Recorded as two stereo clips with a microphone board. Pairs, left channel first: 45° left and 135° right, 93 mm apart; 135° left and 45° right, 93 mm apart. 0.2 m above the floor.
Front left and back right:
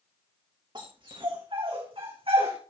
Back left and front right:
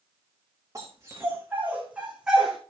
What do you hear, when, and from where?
0.8 s a dog barking: 105° right, 4 m; by 2.6 s 130° right, 3.5 m